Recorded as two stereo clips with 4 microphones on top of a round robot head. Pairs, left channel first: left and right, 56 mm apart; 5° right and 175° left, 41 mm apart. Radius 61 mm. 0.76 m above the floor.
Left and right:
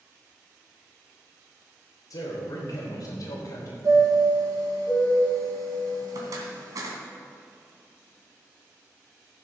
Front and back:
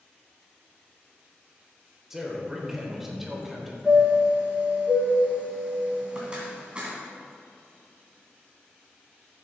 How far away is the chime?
About 2 m.